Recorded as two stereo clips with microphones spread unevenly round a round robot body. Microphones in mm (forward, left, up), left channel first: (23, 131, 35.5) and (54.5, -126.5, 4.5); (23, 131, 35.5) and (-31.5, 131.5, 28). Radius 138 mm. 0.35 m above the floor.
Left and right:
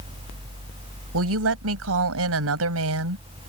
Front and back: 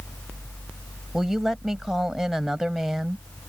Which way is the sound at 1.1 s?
100° right.